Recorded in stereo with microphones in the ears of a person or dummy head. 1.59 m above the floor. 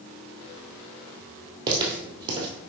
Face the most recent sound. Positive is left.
turn(degrees=-25)  # may be behind; listen again after turning